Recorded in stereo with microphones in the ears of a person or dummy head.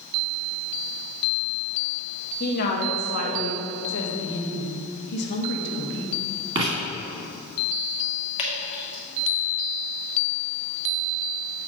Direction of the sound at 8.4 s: 25° left (ahead or behind).